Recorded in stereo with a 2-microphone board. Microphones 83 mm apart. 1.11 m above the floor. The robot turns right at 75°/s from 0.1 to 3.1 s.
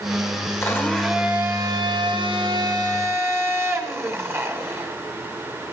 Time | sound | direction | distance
0.6 | a blender | 145° left | 1.8 m